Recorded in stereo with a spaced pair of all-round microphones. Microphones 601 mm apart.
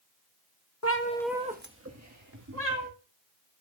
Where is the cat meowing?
25° left (ahead or behind), 0.8 m; by 2.9 s 30° right (ahead or behind), 2.5 m.